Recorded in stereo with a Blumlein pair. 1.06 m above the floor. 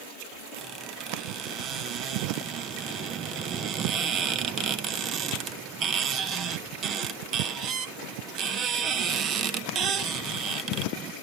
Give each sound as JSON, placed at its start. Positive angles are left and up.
{"t": 0.6, "sound": "a squeak", "azimuth_deg": -30, "distance_m": 0.9}